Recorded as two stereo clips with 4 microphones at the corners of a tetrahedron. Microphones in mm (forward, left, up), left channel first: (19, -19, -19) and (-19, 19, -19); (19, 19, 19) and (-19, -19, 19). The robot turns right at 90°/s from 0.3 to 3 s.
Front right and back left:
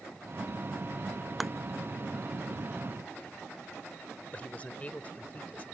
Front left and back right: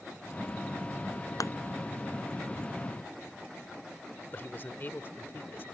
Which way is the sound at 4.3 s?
10° left.